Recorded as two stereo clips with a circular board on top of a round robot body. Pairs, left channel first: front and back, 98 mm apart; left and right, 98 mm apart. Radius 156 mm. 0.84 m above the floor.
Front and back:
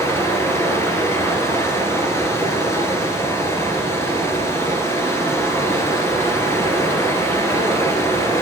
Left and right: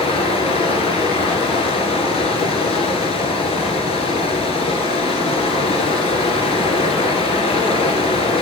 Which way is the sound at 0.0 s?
65° left.